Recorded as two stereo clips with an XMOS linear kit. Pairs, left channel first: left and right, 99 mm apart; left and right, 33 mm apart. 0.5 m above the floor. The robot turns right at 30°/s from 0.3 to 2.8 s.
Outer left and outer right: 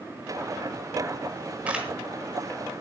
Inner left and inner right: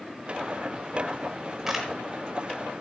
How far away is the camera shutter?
About 4.5 m.